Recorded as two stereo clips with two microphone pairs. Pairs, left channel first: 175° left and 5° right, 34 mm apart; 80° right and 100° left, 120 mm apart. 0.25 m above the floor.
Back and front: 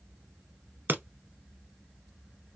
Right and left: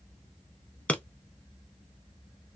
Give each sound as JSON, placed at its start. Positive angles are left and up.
{"t": 0.9, "sound": "breaking glass", "azimuth_deg": 0, "distance_m": 0.6}